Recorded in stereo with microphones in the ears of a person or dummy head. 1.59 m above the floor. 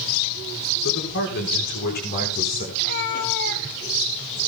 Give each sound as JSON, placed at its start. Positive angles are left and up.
{"t": 0.8, "sound": "a man speaking", "side_deg": 70, "distance_m": 5.5}
{"t": 2.8, "sound": "a cat meowing", "side_deg": 55, "distance_m": 1.3}